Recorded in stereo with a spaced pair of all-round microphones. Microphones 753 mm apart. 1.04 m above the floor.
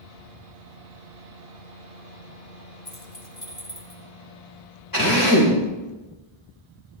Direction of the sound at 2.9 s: 40° left (ahead or behind).